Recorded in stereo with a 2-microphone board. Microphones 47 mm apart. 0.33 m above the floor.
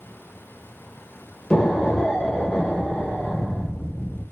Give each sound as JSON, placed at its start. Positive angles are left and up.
{"t": 1.5, "sound": "an explosion", "side_deg": 20, "distance_m": 0.8}